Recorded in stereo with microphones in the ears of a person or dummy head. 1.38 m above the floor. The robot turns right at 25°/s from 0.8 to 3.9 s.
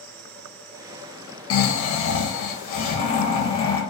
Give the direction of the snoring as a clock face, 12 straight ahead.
9 o'clock.